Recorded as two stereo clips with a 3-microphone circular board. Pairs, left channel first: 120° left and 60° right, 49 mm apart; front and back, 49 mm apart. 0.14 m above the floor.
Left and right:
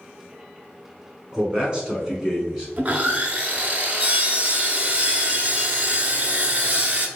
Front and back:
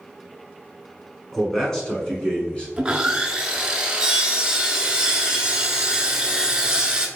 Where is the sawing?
110° right, 0.5 m.